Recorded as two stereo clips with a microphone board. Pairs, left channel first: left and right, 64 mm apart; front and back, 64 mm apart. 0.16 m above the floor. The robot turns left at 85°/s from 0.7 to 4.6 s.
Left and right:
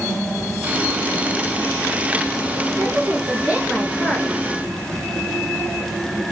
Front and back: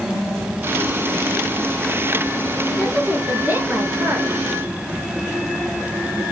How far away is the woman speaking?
About 2 m.